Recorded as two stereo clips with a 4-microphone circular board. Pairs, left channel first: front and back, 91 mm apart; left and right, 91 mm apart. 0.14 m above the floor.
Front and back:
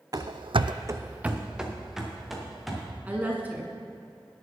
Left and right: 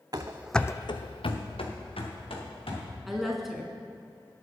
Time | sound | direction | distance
0.1 | running footsteps | 135° right | 0.8 m
3.1 | a woman speaking | 175° right | 1.0 m